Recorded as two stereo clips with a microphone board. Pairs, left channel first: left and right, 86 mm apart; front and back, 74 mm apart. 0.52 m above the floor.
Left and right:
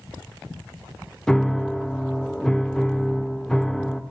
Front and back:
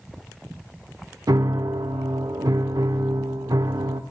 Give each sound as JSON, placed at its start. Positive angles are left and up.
{"t": 1.3, "sound": "a piano", "azimuth_deg": 170, "distance_m": 0.6}